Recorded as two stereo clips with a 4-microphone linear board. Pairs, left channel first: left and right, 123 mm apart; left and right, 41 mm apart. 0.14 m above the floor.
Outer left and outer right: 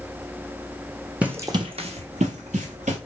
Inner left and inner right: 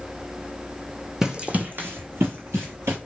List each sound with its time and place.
1.2 s running footsteps: 10° right (ahead or behind), 0.5 m; by 3.0 s 85° right, 1.1 m